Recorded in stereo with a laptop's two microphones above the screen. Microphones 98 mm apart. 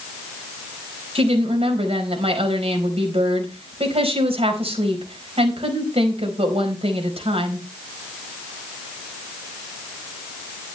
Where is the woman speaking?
85° right, 4.5 m.